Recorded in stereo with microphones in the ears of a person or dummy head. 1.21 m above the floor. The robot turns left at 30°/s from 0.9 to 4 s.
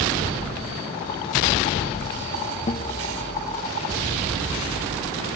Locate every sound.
2.7 s a guitar: 35° left (ahead or behind), 0.7 m; by 2.9 s 30° left (ahead or behind), 0.7 m